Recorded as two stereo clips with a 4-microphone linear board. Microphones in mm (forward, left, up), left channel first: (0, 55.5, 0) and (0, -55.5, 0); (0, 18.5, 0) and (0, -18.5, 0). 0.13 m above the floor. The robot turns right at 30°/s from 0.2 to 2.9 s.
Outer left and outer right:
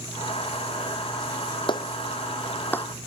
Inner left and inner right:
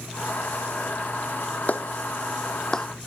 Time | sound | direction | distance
1.7 | a clap | 50° left (ahead or behind) | ?